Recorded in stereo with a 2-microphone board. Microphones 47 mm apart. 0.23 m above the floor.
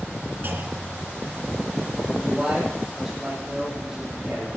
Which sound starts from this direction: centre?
A man speaking, at 2.2 s.